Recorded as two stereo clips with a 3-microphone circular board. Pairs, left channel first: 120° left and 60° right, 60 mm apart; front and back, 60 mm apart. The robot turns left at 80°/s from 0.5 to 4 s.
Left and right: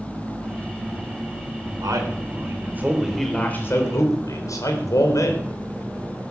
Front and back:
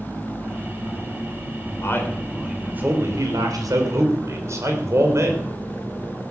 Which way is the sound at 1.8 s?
40° right.